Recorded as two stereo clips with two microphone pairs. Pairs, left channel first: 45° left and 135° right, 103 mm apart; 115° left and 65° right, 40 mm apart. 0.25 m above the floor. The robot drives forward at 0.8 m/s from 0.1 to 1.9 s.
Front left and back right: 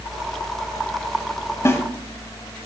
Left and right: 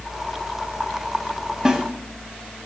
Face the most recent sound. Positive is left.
turn(degrees=-5)